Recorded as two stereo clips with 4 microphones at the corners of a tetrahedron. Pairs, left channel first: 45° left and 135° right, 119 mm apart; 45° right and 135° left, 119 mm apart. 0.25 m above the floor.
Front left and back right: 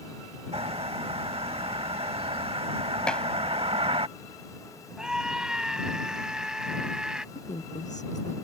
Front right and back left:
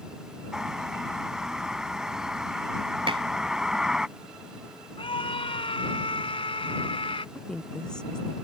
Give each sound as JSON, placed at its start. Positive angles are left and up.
{"t": 0.5, "sound": "a bird", "azimuth_deg": -145}
{"t": 3.1, "sound": "dishes clattering", "azimuth_deg": 125}
{"t": 5.0, "sound": "a scream", "azimuth_deg": -50}
{"t": 7.3, "sound": "a woman speaking", "azimuth_deg": 35}